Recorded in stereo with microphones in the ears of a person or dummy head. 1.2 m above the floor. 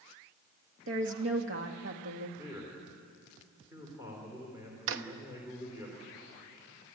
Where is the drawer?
70° right (ahead or behind), 1.0 m.